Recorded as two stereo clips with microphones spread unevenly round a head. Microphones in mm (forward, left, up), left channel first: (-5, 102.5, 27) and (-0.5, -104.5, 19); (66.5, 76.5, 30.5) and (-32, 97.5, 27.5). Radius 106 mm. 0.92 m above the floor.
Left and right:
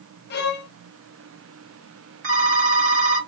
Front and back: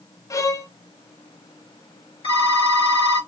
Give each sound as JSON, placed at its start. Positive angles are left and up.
{"t": 0.3, "sound": "a violin", "azimuth_deg": 45, "distance_m": 0.7}
{"t": 2.2, "sound": "a phone ringing", "azimuth_deg": -70, "distance_m": 2.0}